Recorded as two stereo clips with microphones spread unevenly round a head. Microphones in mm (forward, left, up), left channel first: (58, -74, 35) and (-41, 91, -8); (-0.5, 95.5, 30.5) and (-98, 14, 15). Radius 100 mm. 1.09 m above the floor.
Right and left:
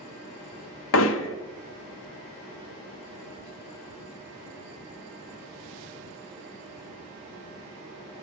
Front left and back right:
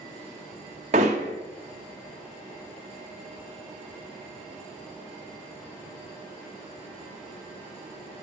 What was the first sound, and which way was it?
Hammering, 85° right.